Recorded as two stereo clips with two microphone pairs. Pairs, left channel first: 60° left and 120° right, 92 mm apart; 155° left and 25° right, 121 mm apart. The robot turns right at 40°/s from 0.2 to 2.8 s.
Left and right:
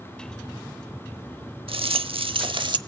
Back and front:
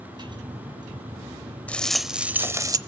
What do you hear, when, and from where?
1.7 s a rattle: 130° right, 0.6 m; by 2.8 s 85° right, 0.6 m